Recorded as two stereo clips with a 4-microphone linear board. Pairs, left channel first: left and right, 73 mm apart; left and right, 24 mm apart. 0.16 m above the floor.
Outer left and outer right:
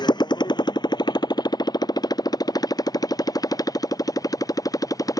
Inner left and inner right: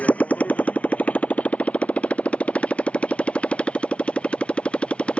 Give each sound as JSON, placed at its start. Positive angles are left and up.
{"t": 0.0, "sound": "a motorcycle", "side_deg": 80}